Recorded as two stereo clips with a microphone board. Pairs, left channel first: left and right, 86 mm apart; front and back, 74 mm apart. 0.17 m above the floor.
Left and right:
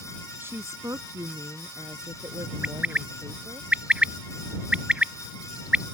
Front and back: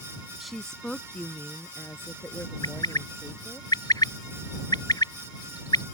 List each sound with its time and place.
0.4 s a woman speaking: 95° right; by 3.6 s 55° right
2.6 s a bird: 15° right